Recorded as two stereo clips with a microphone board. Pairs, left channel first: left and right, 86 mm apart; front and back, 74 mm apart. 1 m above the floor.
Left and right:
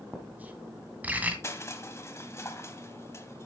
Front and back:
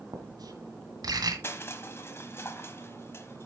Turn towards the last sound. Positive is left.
turn(degrees=45)